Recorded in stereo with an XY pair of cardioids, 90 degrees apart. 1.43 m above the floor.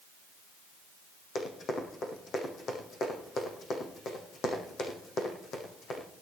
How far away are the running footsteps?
About 5 m.